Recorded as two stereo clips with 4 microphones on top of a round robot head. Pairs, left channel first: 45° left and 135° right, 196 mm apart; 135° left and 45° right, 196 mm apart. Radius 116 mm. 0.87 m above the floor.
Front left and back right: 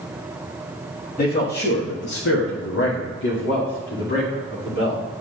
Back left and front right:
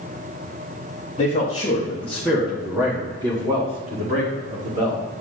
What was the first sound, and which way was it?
A man speaking, 80° left.